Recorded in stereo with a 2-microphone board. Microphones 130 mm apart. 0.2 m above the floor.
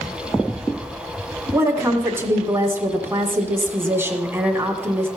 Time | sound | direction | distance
1.5 | a woman speaking | 15° right (ahead or behind) | 1.8 m